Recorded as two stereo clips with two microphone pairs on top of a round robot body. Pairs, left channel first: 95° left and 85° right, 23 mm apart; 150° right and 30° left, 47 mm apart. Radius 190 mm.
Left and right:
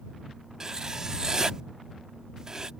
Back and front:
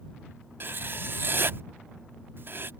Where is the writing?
20° right.